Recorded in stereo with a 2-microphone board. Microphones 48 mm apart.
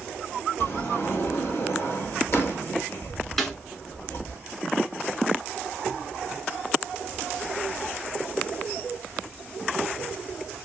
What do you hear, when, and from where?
0.6 s a sliding door: 65° left (ahead or behind), 1.8 m
3.4 s a snare drum: 5° left (ahead or behind), 1.2 m